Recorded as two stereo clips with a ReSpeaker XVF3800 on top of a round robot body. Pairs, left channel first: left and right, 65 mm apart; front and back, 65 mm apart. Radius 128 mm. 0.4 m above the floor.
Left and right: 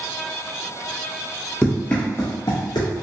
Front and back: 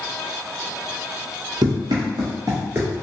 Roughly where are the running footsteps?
Behind.